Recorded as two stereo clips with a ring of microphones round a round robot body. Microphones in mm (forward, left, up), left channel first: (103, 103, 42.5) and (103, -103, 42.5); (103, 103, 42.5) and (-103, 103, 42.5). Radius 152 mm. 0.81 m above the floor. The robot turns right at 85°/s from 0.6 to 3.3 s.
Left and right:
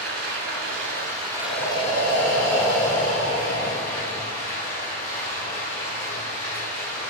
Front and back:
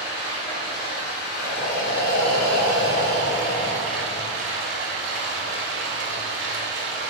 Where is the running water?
80° right, 1.1 m; by 7.1 s 150° left, 1.1 m.